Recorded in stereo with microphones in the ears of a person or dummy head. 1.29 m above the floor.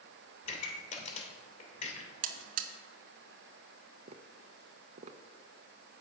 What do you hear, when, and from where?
0.4 s a pop: 40° left (ahead or behind), 2.5 m
2.2 s a buzzer: 55° right (ahead or behind), 1.0 m
4.1 s tapping: 35° right (ahead or behind), 0.7 m